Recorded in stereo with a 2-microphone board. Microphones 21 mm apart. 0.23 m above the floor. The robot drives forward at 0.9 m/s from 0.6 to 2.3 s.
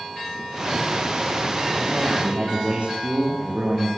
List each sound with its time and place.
1.8 s a man speaking: 70° right (ahead or behind), 10 m